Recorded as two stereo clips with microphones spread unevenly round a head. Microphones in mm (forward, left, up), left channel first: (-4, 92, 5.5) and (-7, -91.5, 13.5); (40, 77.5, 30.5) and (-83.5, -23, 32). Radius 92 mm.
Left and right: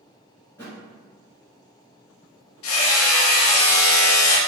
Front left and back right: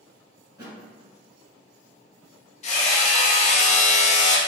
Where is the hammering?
85° left, 0.5 m.